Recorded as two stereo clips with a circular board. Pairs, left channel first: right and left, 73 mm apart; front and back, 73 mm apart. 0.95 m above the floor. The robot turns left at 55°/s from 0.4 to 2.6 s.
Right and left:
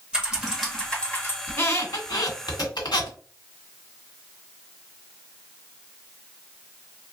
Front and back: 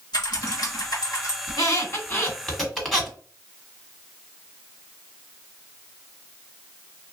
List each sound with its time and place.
0.1 s typing on a keyboard: 15° left, 1.4 m; by 1.4 s 40° right, 1.4 m
1.5 s a squeak: 25° right, 1.7 m; by 3.2 s 90° right, 1.7 m